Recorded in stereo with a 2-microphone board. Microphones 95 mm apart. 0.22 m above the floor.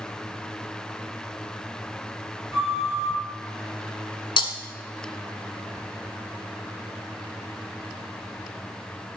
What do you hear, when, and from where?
2.5 s a flute: 30° right (ahead or behind), 2.5 m
4.4 s breaking glass: 65° left (ahead or behind), 1.0 m